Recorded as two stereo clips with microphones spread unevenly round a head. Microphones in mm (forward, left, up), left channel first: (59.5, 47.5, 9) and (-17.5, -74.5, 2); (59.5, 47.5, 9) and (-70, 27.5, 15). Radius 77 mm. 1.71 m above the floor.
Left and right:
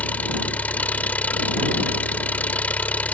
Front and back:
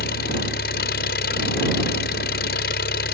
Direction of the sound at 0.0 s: 20° right.